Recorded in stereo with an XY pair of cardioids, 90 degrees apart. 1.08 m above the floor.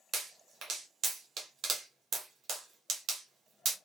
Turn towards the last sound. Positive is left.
turn(degrees=-70)